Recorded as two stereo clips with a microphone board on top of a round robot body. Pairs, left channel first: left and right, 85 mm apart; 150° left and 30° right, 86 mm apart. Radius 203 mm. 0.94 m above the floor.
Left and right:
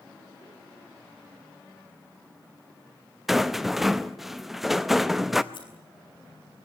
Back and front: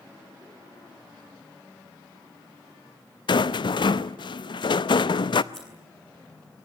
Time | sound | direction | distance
3.3 | a rattle | 175° right | 0.6 m
5.5 | scissors | 65° left | 8.5 m